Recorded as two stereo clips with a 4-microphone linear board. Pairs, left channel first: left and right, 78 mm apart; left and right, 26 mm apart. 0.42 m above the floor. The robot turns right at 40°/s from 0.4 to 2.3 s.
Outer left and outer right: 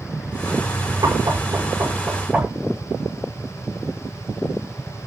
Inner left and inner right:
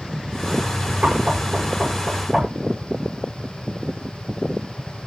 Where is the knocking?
65° right (ahead or behind), 7 m; by 2.5 s 15° right (ahead or behind), 7 m.